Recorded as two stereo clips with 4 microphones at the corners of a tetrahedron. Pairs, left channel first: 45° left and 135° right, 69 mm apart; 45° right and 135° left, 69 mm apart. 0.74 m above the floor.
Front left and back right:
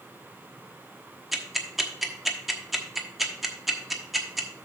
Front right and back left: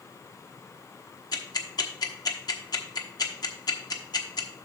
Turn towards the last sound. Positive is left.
turn(degrees=-50)